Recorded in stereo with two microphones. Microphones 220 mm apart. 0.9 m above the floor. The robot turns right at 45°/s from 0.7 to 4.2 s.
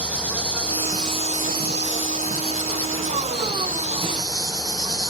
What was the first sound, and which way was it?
An insect, 175° right.